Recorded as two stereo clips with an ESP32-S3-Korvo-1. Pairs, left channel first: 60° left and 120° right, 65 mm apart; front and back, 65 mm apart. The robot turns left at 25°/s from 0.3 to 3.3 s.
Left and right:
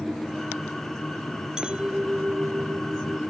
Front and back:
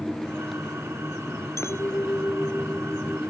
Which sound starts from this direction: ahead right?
A clink, at 1.6 s.